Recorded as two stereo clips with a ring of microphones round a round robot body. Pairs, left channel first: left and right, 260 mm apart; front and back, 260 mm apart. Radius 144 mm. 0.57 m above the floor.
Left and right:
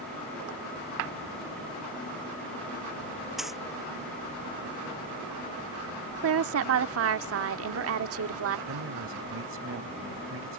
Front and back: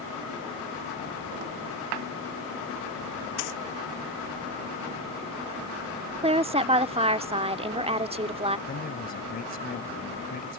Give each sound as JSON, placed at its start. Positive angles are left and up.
{"t": 3.4, "sound": "a dropped coin", "azimuth_deg": 0}
{"t": 6.2, "sound": "a woman speaking", "azimuth_deg": -115}
{"t": 8.7, "sound": "a man speaking", "azimuth_deg": -55}